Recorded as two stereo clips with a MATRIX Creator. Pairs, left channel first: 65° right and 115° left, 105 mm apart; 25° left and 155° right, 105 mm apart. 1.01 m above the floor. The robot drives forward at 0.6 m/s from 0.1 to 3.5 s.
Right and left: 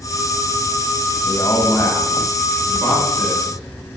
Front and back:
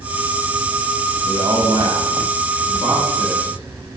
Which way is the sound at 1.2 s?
115° right.